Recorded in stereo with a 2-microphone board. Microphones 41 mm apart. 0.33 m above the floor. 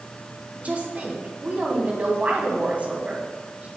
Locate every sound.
0.6 s a woman speaking: 35° right (ahead or behind), 2.5 m